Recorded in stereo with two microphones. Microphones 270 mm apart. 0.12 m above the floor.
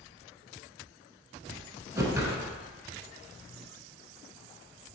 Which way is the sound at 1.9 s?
10° right (ahead or behind).